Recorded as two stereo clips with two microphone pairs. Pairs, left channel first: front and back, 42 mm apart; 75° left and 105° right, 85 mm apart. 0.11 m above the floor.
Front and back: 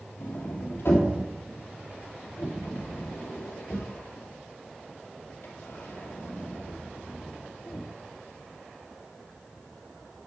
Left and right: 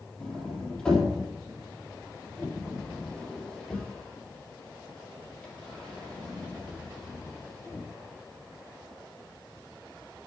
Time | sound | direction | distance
0.2 | a sliding door | 10° right | 3.5 m